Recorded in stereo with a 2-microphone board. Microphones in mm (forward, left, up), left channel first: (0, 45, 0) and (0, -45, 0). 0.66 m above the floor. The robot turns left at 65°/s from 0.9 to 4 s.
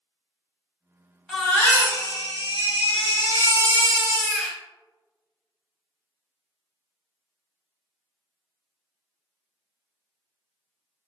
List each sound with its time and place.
1.3 s a baby crying: 175° left, 0.9 m; by 4.6 s straight ahead, 0.9 m